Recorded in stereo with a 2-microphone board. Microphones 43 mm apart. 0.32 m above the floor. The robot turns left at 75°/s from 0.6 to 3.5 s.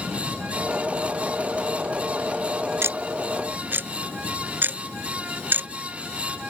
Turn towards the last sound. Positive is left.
turn(degrees=-50)  # may be behind; listen again after turning